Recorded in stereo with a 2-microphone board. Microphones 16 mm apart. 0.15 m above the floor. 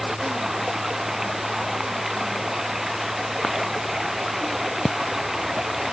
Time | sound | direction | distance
0.0 | running water | 20° right (ahead or behind) | ?